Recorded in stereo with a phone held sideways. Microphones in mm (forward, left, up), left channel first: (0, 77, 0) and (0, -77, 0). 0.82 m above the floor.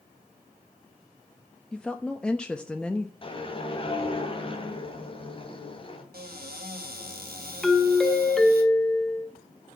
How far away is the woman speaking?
About 0.7 m.